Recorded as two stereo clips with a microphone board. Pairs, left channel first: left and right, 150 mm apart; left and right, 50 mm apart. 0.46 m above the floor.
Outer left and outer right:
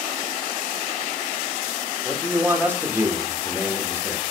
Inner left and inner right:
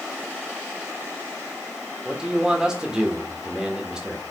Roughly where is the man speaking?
Centre.